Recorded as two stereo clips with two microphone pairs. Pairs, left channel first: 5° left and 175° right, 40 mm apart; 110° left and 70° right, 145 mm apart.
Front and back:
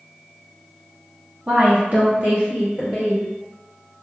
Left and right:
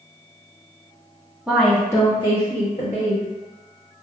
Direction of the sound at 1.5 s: 150° right.